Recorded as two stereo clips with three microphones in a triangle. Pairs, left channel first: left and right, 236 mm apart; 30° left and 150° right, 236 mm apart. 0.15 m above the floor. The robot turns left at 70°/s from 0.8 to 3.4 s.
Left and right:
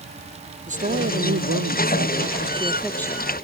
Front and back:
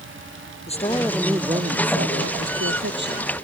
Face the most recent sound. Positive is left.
turn(degrees=145)